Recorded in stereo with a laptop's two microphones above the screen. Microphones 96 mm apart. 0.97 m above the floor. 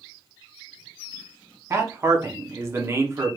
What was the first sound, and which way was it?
A man speaking, 30° right (ahead or behind).